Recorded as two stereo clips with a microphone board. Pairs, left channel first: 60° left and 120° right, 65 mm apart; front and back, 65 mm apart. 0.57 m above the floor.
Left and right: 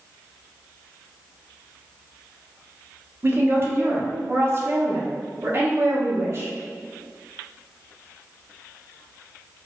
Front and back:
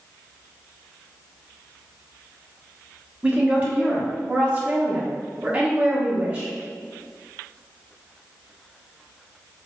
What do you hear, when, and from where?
3.2 s a woman speaking: 125° right, 1.1 m